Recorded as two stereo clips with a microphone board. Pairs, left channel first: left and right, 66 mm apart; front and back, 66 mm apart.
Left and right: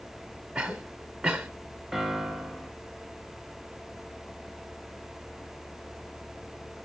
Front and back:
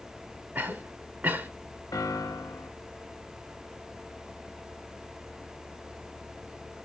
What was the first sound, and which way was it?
A cough, 160° right.